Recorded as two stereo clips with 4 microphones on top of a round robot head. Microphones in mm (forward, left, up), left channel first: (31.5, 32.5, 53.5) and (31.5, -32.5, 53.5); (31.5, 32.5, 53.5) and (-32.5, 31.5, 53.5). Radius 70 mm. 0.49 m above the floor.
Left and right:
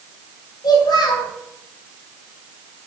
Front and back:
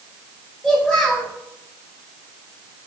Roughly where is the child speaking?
Left.